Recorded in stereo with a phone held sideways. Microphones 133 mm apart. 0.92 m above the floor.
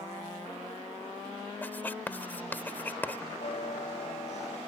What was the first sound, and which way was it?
Writing, 15° left (ahead or behind).